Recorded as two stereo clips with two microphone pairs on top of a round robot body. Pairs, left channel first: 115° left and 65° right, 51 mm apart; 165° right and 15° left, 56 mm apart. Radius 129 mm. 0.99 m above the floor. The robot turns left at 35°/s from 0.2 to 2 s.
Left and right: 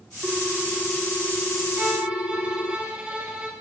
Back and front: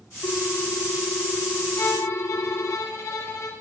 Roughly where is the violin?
Behind right.